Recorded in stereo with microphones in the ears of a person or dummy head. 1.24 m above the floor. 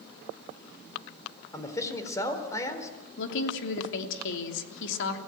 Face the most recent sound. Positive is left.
turn(degrees=75)  # may be behind; listen again after turning